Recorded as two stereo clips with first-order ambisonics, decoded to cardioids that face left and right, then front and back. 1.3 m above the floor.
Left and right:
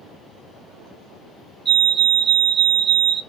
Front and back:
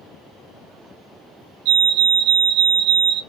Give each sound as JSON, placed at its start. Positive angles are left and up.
{"t": 1.6, "sound": "a fire alarm", "azimuth_deg": -155, "distance_m": 3.0}